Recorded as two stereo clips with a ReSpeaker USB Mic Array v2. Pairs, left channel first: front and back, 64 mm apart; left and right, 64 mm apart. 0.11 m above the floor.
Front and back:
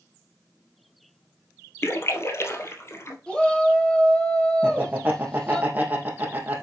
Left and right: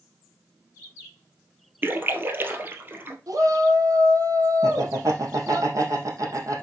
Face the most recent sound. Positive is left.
turn(degrees=-120)